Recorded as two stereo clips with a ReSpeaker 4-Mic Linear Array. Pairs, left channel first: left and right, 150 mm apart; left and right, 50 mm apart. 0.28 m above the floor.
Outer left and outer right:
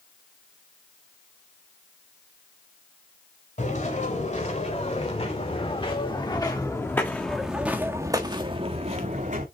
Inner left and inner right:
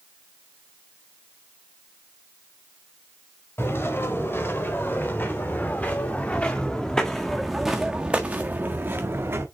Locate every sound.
3.6 s footsteps: 55° left (ahead or behind), 4 m; by 9.4 s 55° right (ahead or behind), 1.9 m